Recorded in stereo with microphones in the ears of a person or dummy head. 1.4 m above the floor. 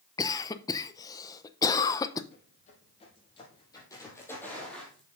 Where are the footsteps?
40° left (ahead or behind), 3 m; by 5.1 s centre (ahead or behind), 3 m.